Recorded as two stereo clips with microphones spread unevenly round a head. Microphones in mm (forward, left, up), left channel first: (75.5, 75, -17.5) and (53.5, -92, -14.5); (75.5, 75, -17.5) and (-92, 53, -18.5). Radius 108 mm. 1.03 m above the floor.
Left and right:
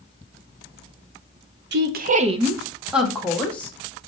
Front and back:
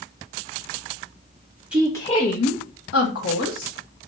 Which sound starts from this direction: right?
A woman speaking, at 1.7 s.